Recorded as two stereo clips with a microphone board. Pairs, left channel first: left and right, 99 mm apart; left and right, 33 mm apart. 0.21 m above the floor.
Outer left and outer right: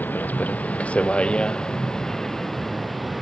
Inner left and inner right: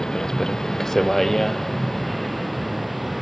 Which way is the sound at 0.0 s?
15° left (ahead or behind).